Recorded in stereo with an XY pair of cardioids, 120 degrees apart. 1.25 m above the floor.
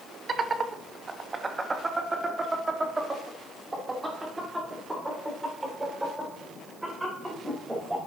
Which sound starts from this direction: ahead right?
Laughter, at 0.3 s.